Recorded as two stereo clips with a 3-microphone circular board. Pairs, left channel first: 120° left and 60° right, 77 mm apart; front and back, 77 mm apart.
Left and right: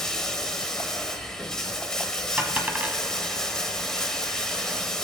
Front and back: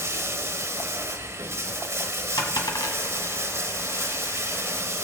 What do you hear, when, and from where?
0.0 s running water: 165° right, 1.1 m
2.4 s a dropped coin: 5° left, 1.2 m